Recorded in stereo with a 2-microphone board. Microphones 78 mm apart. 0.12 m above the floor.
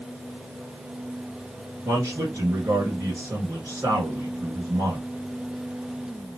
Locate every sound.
1.9 s a man speaking: 40° right (ahead or behind), 1.8 m